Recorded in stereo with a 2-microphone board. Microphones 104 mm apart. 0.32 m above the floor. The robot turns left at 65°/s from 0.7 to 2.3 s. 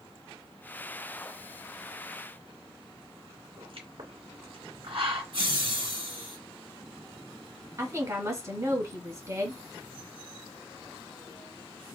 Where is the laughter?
60° right (ahead or behind), 2.0 m.